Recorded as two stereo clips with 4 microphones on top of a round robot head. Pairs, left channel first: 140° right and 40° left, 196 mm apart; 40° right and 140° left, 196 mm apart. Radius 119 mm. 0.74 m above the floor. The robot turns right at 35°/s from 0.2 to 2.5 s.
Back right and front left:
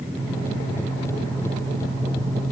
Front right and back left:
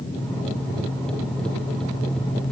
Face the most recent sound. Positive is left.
No sound to turn to.